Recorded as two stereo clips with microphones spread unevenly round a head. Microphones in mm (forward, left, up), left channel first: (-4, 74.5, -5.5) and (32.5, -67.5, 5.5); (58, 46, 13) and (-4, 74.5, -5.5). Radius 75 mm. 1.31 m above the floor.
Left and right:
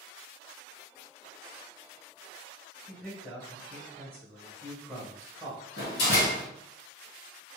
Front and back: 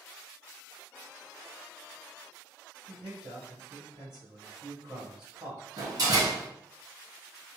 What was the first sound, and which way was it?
A man speaking, 175° right.